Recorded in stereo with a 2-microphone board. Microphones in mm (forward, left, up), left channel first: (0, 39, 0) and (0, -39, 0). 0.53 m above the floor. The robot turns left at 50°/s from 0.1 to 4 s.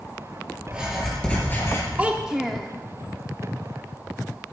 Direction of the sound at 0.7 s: 165° right.